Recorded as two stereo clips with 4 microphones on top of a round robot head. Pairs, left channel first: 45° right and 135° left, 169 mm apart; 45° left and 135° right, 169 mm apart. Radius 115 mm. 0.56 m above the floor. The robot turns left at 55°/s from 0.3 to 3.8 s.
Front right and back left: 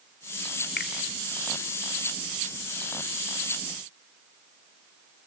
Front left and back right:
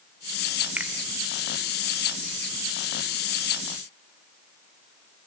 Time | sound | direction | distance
0.8 | a finger snap | 55° right | 2 m